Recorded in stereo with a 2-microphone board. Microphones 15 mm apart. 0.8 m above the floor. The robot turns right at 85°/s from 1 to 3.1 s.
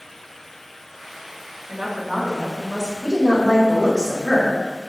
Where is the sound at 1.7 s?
55° right, 1.8 m; by 2.9 s 50° left, 1.8 m.